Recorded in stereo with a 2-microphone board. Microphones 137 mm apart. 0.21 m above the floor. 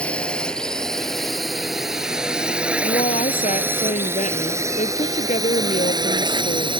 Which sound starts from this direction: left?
A woman speaking, at 2.8 s.